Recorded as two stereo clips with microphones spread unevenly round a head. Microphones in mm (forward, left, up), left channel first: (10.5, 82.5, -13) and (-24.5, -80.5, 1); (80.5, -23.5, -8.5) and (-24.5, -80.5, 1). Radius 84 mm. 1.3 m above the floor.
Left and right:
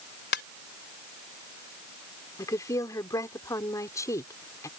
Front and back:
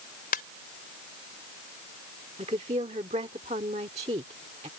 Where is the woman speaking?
150° left.